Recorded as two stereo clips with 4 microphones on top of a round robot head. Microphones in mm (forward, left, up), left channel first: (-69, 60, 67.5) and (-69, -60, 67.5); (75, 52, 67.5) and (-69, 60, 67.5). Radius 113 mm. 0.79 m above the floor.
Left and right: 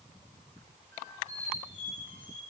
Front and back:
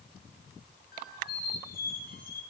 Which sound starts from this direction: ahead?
A squeak, at 0.9 s.